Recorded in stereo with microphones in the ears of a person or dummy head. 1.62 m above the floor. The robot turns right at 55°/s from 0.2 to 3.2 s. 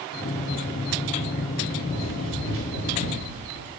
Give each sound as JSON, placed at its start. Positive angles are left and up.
{"t": 1.9, "sound": "running footsteps", "side_deg": -35, "distance_m": 3.0}